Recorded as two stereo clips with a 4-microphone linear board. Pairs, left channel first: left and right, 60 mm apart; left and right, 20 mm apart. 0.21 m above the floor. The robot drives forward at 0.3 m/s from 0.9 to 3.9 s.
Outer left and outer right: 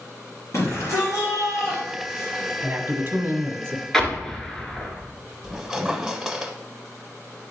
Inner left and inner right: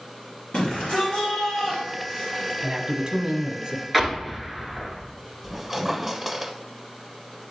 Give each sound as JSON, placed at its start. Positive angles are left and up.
{"t": 0.5, "sound": "a shout", "side_deg": 60, "distance_m": 2.5}
{"t": 2.6, "sound": "a man speaking", "side_deg": -35, "distance_m": 1.2}
{"t": 3.9, "sound": "an explosion", "side_deg": 5, "distance_m": 1.3}
{"t": 5.4, "sound": "a squeak", "side_deg": -5, "distance_m": 0.8}